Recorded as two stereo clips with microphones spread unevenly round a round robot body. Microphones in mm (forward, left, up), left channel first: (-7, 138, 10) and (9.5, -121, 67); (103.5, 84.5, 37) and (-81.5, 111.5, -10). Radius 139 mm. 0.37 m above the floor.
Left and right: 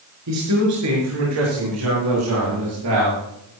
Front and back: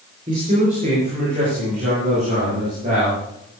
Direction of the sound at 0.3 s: 120° right.